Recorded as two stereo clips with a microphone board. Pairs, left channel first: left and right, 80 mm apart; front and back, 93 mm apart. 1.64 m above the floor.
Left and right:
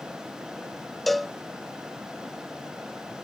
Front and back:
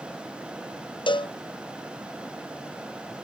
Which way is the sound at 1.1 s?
Straight ahead.